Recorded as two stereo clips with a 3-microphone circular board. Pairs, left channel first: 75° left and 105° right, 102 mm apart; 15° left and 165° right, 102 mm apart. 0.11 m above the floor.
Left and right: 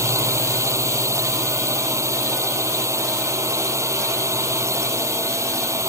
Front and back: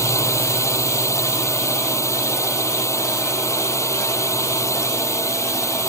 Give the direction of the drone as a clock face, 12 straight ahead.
2 o'clock.